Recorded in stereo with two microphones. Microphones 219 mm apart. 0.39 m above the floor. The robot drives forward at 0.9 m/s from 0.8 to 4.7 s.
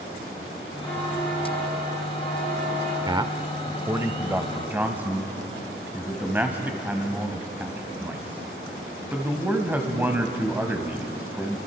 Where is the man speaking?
20° right (ahead or behind), 0.8 m; by 11.6 s 10° right (ahead or behind), 1.9 m.